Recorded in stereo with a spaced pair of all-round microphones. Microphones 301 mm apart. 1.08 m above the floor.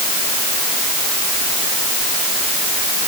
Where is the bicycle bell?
I don't hear a bicycle bell.